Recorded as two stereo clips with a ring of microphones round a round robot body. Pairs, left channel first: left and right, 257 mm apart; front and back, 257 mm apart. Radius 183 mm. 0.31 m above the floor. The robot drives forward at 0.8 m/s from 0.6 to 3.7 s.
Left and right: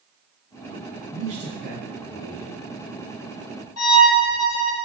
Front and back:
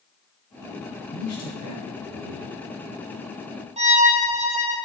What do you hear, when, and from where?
1.1 s a man speaking: 20° right, 3.5 m; by 2.5 s 30° right, 2.5 m
3.8 s a violin: 115° left, 3.5 m